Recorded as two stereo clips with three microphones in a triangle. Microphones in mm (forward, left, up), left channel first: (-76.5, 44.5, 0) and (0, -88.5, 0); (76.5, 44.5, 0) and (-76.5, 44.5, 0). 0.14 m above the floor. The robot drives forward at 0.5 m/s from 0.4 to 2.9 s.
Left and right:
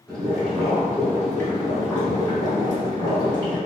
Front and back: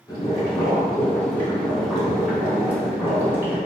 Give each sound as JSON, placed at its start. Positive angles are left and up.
{"t": 0.1, "sound": "boiling", "azimuth_deg": 40, "distance_m": 1.9}